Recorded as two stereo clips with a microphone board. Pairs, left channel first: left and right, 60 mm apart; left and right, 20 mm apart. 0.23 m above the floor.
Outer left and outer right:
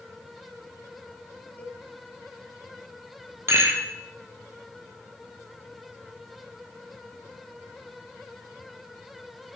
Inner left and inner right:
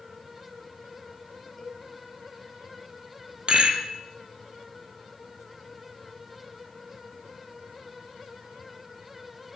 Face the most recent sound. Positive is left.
turn(degrees=-45)  # may be behind; listen again after turning